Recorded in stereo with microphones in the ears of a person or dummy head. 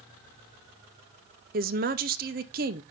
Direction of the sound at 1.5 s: 45° right (ahead or behind).